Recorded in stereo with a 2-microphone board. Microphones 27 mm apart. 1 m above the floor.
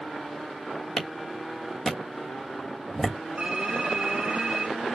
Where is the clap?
15° left (ahead or behind), 1.5 m.